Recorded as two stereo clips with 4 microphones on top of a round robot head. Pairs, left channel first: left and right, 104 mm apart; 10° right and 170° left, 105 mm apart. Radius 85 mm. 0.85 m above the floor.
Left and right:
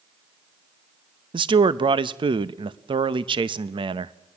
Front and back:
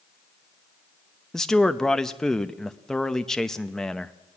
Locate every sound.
1.3 s a man speaking: 90° right, 0.7 m